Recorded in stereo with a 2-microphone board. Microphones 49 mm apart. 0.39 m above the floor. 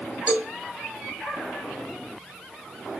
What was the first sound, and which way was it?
A cowbell, 30° right (ahead or behind).